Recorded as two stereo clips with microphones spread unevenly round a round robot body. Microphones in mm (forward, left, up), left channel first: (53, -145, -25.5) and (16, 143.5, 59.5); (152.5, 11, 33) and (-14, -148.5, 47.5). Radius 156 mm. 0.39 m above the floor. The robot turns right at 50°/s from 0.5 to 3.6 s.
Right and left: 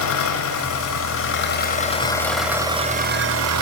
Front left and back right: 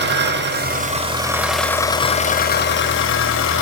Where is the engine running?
95° right, 1.2 m; by 3.6 s 60° left, 1.2 m.